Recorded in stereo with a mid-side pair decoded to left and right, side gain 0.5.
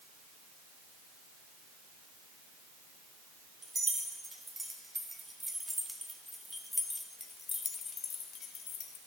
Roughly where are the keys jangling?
Ahead right.